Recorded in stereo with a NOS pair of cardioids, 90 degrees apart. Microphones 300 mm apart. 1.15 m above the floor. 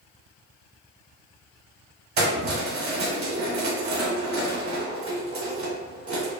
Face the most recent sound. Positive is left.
turn(degrees=-45)